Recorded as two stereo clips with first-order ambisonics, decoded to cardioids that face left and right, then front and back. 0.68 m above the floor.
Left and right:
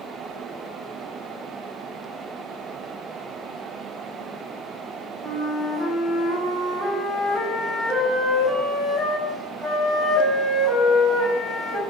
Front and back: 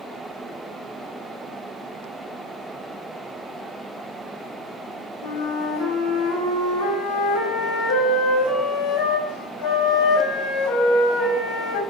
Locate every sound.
5.2 s a flute: straight ahead, 0.8 m